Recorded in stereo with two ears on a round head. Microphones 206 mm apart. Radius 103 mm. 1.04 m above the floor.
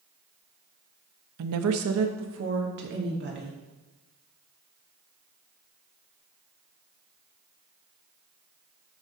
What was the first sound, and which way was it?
A woman speaking, 75° right (ahead or behind).